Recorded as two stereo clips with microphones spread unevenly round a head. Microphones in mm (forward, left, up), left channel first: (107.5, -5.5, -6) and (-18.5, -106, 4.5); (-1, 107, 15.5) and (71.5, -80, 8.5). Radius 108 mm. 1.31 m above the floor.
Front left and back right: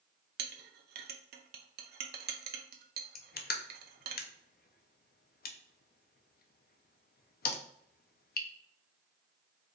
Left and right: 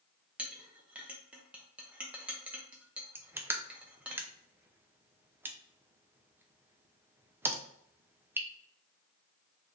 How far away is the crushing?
About 0.6 m.